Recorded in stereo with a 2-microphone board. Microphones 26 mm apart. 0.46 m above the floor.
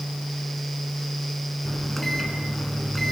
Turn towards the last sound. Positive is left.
turn(degrees=10)  # may be behind; listen again after turning